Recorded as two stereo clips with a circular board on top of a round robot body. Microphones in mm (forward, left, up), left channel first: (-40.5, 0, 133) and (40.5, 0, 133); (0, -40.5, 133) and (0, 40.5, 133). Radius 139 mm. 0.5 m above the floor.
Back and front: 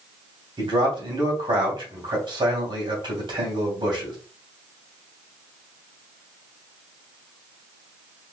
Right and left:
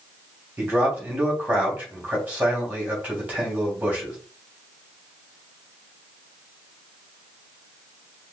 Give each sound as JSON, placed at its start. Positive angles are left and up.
{"t": 0.6, "sound": "a man speaking", "azimuth_deg": 15, "distance_m": 3.0}